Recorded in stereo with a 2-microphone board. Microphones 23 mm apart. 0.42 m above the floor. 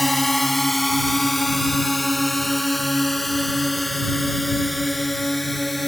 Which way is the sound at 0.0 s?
5° left (ahead or behind).